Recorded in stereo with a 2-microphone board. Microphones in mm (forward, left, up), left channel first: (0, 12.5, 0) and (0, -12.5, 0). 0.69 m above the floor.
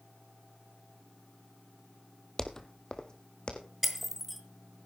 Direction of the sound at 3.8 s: Centre (ahead or behind).